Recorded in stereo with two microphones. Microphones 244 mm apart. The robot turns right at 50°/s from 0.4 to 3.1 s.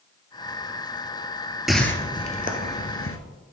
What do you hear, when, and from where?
1.7 s a whoosh: centre (ahead or behind), 0.8 m; by 3.2 s 60° left (ahead or behind), 0.8 m